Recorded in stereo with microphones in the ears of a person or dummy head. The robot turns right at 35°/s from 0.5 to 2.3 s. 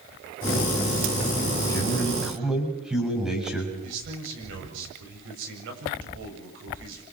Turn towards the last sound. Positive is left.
turn(degrees=-75)  # may be behind; listen again after turning